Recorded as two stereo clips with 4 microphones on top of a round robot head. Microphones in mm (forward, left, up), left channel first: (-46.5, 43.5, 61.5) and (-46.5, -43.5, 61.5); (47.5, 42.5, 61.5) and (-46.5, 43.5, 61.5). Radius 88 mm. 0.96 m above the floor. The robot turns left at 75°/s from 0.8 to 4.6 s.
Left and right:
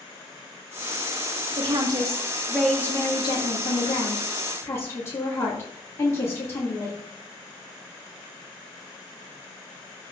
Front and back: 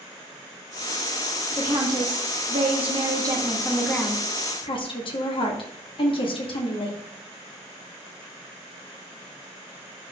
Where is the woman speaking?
105° right, 2 m; by 7.0 s 25° left, 2 m.